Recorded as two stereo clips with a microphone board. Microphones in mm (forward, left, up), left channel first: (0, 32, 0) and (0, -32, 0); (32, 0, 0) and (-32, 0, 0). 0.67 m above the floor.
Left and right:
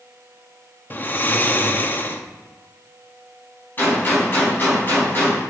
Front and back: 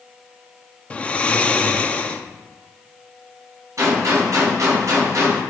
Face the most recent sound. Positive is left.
turn(degrees=150)